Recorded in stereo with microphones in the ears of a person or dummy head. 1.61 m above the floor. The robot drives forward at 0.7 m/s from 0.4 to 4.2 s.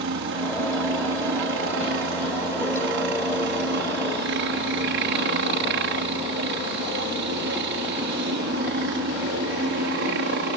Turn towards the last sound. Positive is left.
turn(degrees=-60)  # may be behind; listen again after turning